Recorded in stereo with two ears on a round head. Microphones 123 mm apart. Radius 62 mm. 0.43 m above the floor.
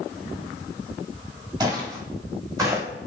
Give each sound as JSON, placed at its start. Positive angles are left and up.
{"t": 1.6, "sound": "footsteps", "side_deg": -30, "distance_m": 4.5}